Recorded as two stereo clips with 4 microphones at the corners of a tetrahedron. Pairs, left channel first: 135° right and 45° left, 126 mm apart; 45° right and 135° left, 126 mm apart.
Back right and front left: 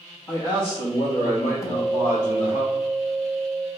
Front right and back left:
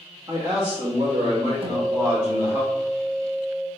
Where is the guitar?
170° left, 0.6 m.